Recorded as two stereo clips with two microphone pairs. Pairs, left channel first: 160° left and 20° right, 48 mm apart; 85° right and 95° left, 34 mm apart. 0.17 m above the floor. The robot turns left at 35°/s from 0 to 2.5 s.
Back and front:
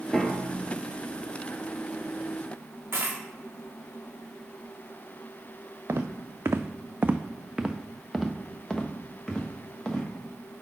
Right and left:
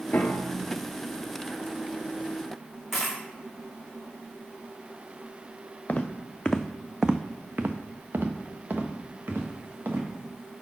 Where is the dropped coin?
10° left, 1.3 m.